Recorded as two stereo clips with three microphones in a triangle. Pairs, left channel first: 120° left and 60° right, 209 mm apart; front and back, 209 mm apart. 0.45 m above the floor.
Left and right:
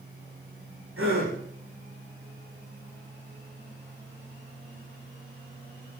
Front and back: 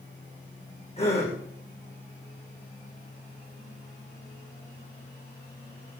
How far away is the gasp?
About 8.5 m.